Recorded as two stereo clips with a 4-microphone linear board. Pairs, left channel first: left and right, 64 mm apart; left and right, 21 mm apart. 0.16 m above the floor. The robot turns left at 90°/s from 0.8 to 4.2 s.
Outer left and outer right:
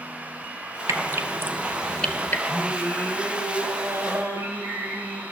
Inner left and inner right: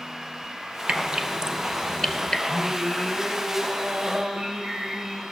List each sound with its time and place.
0.9 s dripping: 55° right (ahead or behind), 0.5 m; by 2.4 s 35° left (ahead or behind), 0.5 m
2.5 s singing: 95° left, 4.5 m; by 5.2 s 60° right, 4.5 m